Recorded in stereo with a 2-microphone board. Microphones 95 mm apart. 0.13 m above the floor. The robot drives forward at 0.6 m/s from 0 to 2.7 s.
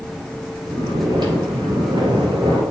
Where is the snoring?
45° right (ahead or behind), 3 m; by 2.6 s 55° right (ahead or behind), 2.5 m.